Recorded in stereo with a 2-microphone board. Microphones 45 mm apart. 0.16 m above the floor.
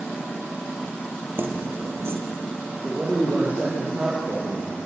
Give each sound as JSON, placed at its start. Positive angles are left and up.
{"t": 1.4, "sound": "keys jangling", "side_deg": -55, "distance_m": 3.5}
{"t": 2.8, "sound": "a man speaking", "side_deg": -25, "distance_m": 6.0}